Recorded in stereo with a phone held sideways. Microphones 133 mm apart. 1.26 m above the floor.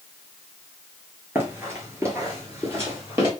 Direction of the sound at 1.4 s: 20° right (ahead or behind).